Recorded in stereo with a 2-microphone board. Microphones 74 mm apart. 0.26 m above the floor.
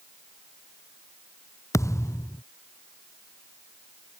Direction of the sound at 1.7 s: 45° left (ahead or behind).